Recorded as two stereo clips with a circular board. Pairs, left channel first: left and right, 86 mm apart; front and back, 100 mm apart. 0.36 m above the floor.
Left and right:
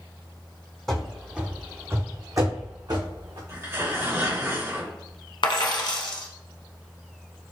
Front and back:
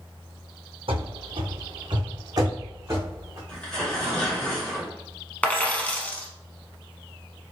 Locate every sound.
0.9 s running footsteps: 175° left, 1.0 m; by 3.4 s 115° right, 1.7 m
3.5 s tearing paper: 75° right, 1.8 m
5.4 s a dropped coin: 75° left, 0.8 m